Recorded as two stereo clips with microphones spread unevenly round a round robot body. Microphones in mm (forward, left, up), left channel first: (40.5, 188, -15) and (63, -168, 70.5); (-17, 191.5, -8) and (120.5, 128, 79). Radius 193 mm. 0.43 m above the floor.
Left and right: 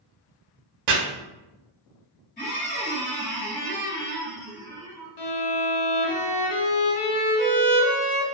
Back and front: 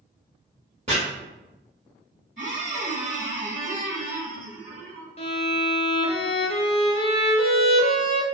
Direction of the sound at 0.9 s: 85° right.